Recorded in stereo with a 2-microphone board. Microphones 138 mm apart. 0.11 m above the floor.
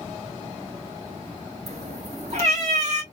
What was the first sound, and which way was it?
A cat meowing, 50° right (ahead or behind).